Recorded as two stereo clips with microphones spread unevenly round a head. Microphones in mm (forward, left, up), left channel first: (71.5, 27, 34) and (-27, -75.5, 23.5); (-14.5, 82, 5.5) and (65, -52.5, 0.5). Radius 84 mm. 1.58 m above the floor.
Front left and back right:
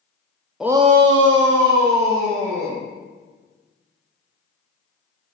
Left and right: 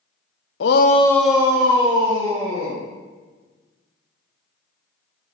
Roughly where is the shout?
Behind left.